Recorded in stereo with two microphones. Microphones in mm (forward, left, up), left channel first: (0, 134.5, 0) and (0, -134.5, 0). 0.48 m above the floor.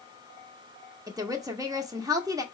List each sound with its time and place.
1.1 s a woman speaking: 15° right (ahead or behind), 0.7 m